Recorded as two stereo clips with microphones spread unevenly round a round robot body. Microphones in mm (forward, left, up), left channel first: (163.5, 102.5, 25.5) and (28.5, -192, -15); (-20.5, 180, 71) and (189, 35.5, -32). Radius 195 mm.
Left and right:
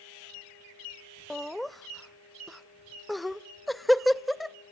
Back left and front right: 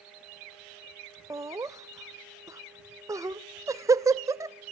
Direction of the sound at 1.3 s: 35° right.